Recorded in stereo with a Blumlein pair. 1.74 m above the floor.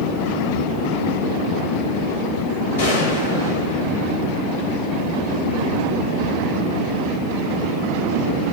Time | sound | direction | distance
2.8 | a gunshot | 60° left | 3 m